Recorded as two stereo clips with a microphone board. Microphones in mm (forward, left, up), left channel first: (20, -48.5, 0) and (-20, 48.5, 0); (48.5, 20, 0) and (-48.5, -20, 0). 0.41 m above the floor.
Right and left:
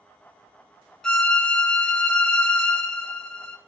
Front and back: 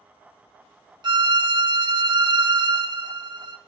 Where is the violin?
150° right, 0.7 m.